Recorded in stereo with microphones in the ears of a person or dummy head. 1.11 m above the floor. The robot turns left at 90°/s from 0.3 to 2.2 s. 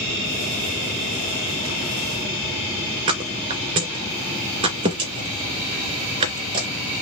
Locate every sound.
3.1 s a thud: 35° right (ahead or behind), 2.5 m